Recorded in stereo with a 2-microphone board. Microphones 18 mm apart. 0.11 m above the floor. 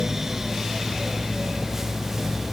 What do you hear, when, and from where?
Only background noise.